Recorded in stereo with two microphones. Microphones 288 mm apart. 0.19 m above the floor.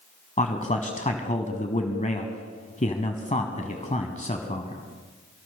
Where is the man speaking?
25° left (ahead or behind), 1.1 m.